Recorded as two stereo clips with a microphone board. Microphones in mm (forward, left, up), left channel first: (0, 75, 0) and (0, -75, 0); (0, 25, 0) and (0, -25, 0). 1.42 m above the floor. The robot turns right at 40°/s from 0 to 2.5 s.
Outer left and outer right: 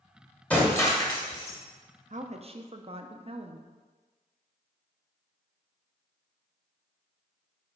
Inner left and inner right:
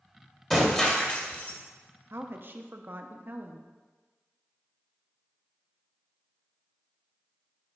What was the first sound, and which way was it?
Breaking glass, 10° left.